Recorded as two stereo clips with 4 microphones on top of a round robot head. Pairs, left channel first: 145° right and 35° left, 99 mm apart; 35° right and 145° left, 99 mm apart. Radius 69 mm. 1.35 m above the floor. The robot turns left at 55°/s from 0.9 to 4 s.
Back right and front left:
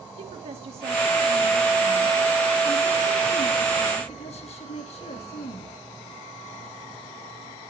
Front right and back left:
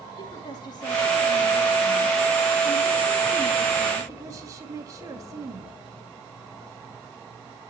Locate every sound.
0.2 s a woman speaking: 15° left, 2 m; by 5.8 s 155° right, 2 m